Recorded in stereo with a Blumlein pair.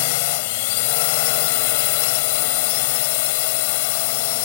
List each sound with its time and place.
0.0 s a drone: 50° left